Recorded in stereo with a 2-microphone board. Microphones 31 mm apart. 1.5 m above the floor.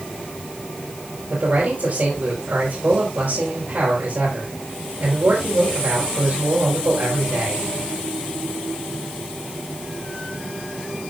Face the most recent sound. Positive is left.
turn(degrees=-75)  # may be behind; listen again after turning